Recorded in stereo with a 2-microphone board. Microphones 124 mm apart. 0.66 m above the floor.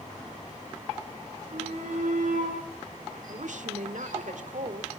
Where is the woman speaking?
70° right (ahead or behind), 1.9 m.